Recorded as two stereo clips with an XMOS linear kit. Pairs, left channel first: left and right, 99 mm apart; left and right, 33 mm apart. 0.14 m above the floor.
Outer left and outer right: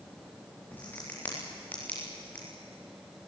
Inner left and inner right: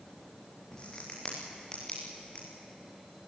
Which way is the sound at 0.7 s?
20° left (ahead or behind).